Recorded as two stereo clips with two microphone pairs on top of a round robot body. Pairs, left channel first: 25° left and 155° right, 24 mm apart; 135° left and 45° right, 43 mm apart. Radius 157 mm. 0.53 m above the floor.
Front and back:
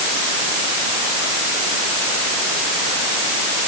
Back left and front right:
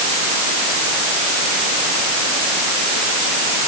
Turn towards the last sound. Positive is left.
No sound to turn to.